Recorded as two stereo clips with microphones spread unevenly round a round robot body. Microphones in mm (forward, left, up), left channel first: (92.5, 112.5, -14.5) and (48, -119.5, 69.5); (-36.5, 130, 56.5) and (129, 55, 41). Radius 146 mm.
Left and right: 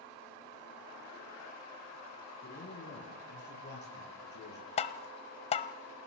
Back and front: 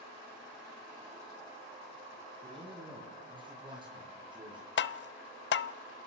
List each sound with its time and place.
2.4 s a man speaking: 35° left, 7 m; by 4.7 s 40° left, 9 m
4.8 s tapping: 135° left, 0.8 m